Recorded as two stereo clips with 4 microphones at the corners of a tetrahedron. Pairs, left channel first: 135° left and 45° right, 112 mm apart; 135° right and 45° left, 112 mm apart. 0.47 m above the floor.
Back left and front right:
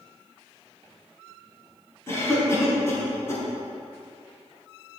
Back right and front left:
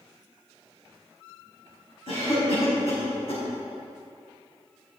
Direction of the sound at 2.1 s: 160° right.